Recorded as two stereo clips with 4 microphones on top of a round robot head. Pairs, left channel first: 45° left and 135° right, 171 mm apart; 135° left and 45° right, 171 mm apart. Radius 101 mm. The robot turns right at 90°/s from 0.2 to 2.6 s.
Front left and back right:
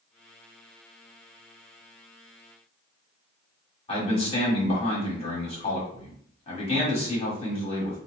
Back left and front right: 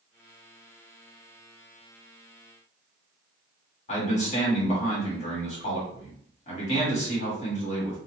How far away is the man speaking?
About 1.6 m.